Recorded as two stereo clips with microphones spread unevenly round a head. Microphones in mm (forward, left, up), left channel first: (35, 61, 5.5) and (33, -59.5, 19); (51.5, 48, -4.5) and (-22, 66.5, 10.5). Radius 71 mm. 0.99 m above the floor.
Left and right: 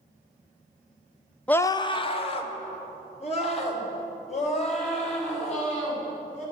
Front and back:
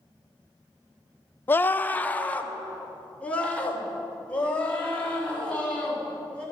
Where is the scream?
20° left, 0.6 m; by 6.4 s 60° left, 8 m.